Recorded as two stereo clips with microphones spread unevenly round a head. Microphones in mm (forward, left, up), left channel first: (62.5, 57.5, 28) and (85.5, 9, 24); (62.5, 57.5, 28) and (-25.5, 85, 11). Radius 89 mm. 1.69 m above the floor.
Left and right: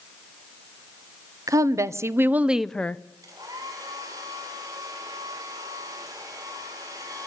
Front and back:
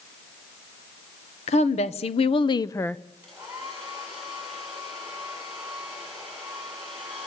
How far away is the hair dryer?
About 7.5 m.